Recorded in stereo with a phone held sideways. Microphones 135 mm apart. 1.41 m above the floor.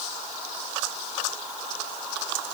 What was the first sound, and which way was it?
Only background noise.